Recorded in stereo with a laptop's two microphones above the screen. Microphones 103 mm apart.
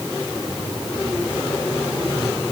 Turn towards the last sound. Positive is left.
No sound to turn to.